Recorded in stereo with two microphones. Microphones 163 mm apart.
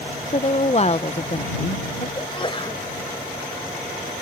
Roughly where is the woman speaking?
Left.